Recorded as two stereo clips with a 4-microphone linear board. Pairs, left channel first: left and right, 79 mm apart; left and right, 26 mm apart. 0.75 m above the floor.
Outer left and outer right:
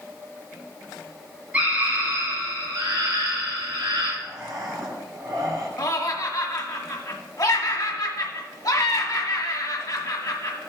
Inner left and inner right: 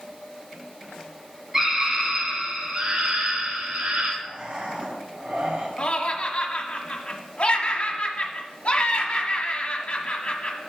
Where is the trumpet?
No trumpet in this recording.